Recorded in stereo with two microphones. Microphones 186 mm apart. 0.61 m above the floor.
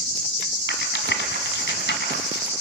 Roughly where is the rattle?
Left.